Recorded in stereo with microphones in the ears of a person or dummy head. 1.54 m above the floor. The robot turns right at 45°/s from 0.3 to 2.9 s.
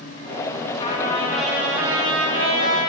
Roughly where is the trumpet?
Behind.